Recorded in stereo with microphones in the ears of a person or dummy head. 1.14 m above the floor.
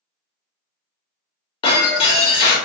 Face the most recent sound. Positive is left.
turn(degrees=30)  # may be behind; listen again after turning